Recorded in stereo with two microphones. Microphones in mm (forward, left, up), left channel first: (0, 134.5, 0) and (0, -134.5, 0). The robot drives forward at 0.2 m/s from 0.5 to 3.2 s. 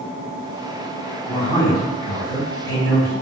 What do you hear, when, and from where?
1.3 s a man speaking: 10° left (ahead or behind), 1.0 m